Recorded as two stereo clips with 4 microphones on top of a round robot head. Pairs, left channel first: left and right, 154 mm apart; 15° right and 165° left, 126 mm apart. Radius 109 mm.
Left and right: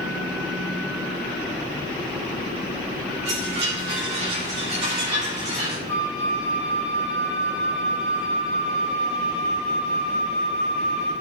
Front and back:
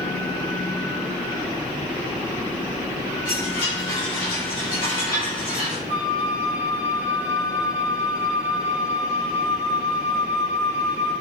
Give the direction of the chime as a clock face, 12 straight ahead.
2 o'clock.